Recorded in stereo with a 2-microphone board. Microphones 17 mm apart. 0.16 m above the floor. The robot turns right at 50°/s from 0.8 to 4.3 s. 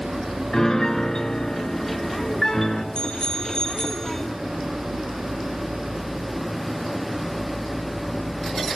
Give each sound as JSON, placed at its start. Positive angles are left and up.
{"t": 0.5, "sound": "a piano", "azimuth_deg": 50, "distance_m": 1.7}
{"t": 3.0, "sound": "a bicycle bell", "azimuth_deg": 100, "distance_m": 2.5}